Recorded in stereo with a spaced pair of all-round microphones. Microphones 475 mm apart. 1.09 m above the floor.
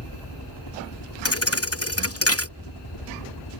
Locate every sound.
0.0 s a helicopter: 55° left (ahead or behind)
1.2 s a thud: 30° left (ahead or behind)